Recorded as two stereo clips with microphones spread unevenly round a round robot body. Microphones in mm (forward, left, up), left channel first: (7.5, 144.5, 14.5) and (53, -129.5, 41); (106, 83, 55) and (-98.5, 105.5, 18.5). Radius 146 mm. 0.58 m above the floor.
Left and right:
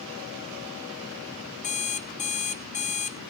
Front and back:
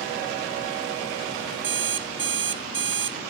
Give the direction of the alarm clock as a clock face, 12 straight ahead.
7 o'clock.